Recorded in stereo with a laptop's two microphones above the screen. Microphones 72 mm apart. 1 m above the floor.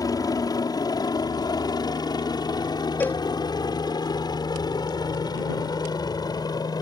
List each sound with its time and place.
0.0 s a helicopter: 55° left (ahead or behind); by 6.8 s 60° left (ahead or behind)
3.0 s a cowbell: 25° left (ahead or behind)